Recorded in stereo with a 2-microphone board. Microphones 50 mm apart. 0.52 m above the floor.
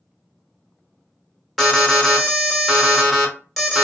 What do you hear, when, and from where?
1.6 s an alarm: centre (ahead or behind), 0.9 m